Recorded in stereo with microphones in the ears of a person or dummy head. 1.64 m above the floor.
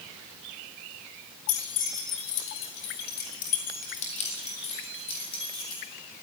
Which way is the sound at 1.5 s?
75° left (ahead or behind).